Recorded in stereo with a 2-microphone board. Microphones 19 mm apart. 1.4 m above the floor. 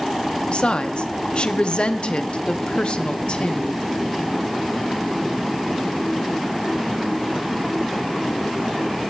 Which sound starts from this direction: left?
A woman speaking, at 0.5 s.